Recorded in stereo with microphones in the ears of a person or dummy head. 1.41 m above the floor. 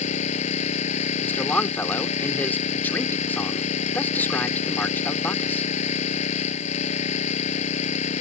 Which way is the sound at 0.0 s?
35° left (ahead or behind).